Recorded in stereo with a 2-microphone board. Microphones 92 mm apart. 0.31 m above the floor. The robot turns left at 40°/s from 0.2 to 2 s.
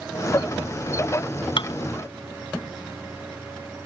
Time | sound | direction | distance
1.6 | dishes clattering | 65° left (ahead or behind) | ?